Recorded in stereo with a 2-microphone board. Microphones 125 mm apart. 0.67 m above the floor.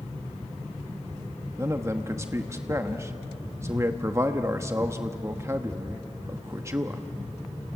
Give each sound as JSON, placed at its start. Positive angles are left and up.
{"t": 1.6, "sound": "a man speaking", "side_deg": -25, "distance_m": 0.9}